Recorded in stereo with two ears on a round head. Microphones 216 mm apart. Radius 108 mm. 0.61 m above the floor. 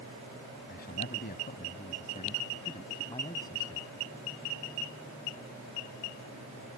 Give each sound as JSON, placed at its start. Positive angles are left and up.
{"t": 0.7, "sound": "a man speaking", "side_deg": 45}